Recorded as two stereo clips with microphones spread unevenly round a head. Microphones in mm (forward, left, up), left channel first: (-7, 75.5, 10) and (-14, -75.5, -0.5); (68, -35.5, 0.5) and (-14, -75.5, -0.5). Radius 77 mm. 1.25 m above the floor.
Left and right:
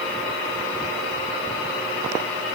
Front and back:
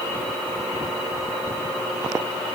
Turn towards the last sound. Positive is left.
No sound to turn to.